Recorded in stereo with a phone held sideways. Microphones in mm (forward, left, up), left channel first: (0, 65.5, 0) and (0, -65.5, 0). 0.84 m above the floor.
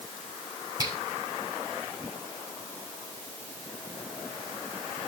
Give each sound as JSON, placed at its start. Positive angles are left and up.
{"t": 0.8, "sound": "a finger snap", "side_deg": -30, "distance_m": 4.5}